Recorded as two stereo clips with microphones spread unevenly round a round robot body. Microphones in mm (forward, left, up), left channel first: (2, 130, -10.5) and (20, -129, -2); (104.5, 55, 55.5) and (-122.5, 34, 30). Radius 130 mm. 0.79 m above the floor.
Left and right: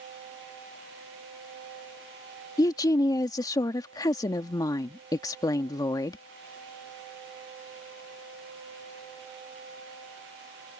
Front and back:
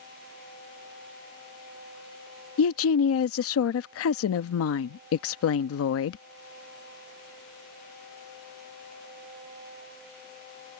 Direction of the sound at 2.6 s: 20° left.